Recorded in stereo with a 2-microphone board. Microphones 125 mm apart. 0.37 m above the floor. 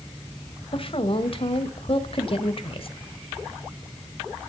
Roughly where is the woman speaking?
Left.